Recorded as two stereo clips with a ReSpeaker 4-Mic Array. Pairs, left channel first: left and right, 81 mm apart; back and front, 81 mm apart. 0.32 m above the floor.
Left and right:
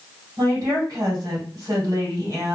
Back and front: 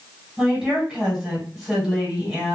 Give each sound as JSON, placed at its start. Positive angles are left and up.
{"t": 0.4, "sound": "a woman speaking", "azimuth_deg": -80, "distance_m": 2.0}